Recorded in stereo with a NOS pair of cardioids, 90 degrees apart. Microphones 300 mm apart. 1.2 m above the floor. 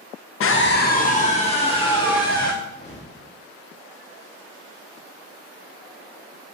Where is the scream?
50° left, 0.7 m; by 2.5 s 15° left, 2.5 m.